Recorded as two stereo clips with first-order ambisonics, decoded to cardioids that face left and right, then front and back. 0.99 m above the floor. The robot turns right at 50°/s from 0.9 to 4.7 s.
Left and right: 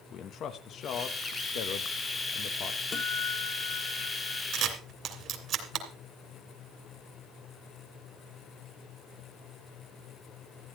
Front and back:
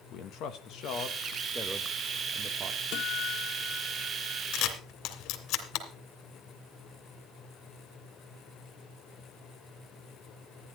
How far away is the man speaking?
About 1.1 m.